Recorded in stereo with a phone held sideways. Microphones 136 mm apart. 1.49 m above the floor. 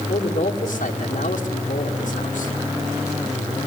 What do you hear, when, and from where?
0.1 s a man speaking: 60° left (ahead or behind), 2.5 m